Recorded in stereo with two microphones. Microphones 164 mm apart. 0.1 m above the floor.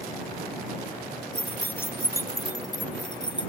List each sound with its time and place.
1.4 s keys jangling: 5° left (ahead or behind); by 3.5 s 30° left (ahead or behind)